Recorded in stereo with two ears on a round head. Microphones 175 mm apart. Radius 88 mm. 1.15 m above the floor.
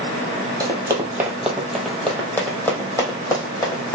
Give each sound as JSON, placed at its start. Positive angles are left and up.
{"t": 0.6, "sound": "running footsteps", "side_deg": -20, "distance_m": 1.2}